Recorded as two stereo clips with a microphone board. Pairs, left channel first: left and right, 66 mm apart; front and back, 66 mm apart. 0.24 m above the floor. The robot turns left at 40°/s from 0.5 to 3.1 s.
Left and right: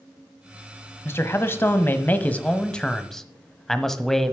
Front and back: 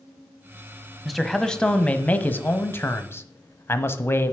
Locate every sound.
1.1 s a man speaking: 90° left, 1.1 m; by 4.3 s 10° left, 1.1 m